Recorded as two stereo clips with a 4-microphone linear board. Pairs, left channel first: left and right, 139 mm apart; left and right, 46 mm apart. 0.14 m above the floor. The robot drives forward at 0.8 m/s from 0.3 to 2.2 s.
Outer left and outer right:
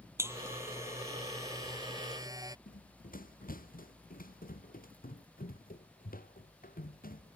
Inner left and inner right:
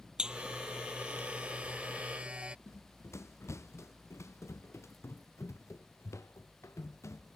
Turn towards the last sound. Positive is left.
turn(degrees=85)